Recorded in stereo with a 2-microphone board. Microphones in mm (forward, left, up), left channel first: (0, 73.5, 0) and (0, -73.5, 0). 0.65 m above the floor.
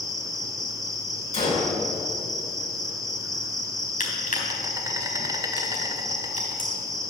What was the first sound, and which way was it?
An insect, 25° right (ahead or behind).